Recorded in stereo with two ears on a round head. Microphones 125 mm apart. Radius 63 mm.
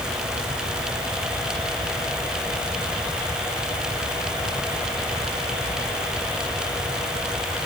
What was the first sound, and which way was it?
Only background noise.